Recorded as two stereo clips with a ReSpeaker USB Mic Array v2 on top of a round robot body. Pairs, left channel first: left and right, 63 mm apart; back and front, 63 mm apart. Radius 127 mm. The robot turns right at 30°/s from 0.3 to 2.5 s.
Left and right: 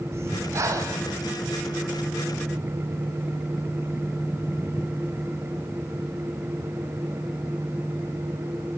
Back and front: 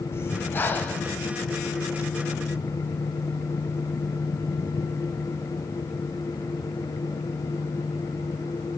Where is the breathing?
135° right, 3 m; by 1.1 s 110° right, 3 m.